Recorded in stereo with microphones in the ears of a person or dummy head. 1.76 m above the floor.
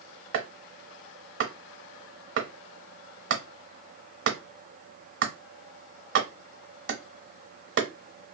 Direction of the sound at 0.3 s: 75° right (ahead or behind).